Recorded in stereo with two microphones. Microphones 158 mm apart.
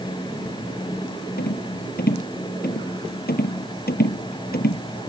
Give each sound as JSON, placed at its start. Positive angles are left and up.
{"t": 1.4, "sound": "a rattle", "side_deg": 80}